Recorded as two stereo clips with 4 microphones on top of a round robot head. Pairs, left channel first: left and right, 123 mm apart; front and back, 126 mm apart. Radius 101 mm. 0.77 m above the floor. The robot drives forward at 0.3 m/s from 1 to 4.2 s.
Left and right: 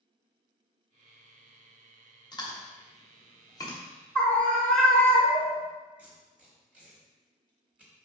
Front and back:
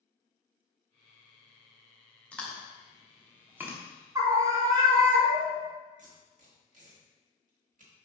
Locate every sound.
2.3 s chewing: 75° left, 0.9 m; by 3.8 s 125° left, 1.0 m
4.2 s a scream: 160° left, 0.7 m
6.0 s tape being pulled: 175° right, 0.9 m